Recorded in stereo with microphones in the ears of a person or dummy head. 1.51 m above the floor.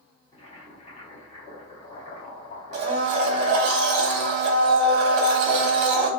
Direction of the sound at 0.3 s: 35° left (ahead or behind).